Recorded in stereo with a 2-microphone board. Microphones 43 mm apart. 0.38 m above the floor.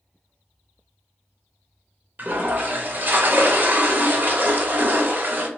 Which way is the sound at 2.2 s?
40° right (ahead or behind).